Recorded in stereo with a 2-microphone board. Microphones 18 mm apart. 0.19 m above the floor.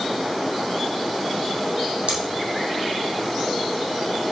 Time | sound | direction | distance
2.1 | scissors | 80° right | 4 m